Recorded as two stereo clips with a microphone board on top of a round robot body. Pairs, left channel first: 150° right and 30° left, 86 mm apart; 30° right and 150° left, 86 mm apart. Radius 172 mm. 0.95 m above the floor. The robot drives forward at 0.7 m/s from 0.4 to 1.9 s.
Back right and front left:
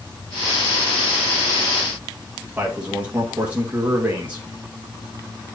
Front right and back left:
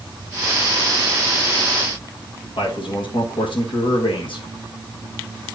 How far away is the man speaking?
About 1.8 m.